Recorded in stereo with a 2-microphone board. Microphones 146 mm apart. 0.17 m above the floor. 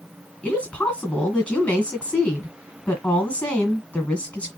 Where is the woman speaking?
10° left (ahead or behind), 1.8 m.